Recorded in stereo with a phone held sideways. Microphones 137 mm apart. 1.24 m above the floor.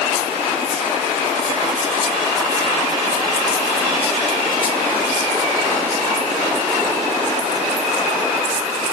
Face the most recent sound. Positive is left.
No sound to turn to.